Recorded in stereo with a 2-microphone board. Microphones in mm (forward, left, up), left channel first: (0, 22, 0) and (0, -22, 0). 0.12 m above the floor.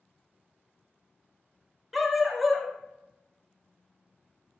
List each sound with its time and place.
1.9 s a dog barking: centre (ahead or behind), 0.6 m